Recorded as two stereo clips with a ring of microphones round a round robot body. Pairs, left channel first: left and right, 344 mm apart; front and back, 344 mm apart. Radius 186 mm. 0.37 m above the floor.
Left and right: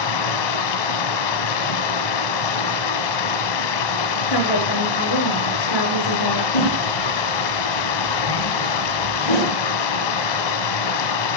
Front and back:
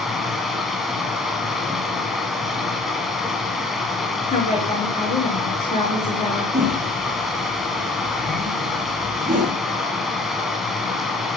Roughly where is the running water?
Left.